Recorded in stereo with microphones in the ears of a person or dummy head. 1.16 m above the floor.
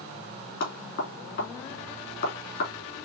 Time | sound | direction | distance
0.6 | knocking | 50° left (ahead or behind) | 3 m